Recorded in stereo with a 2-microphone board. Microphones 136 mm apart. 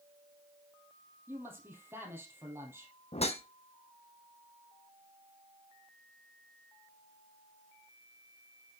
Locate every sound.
1.3 s a man speaking: 20° right (ahead or behind), 3 m
3.1 s a whoosh: 50° left (ahead or behind), 0.7 m